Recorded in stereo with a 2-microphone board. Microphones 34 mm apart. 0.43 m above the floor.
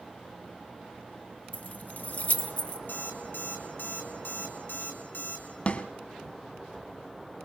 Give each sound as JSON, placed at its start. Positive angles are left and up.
{"t": 1.5, "sound": "keys jangling", "side_deg": 45, "distance_m": 0.9}
{"t": 2.9, "sound": "an alarm clock", "side_deg": 85, "distance_m": 3.5}
{"t": 5.7, "sound": "a snare drum", "side_deg": 45, "distance_m": 1.3}